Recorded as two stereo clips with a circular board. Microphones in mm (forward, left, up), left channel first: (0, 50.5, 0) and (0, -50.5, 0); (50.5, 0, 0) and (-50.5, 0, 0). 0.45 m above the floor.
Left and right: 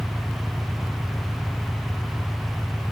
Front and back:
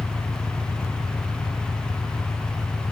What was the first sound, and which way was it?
An engine running, straight ahead.